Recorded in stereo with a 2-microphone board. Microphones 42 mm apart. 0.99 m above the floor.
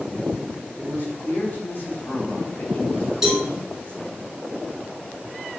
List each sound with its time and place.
0.8 s a man speaking: 50° left (ahead or behind), 4.5 m; by 4.2 s 25° left (ahead or behind), 2 m
3.2 s a cowbell: 10° right (ahead or behind), 3 m